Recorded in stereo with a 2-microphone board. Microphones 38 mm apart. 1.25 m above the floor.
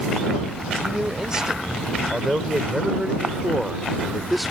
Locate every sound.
0.8 s a man speaking: 20° right (ahead or behind); by 4.5 s centre (ahead or behind)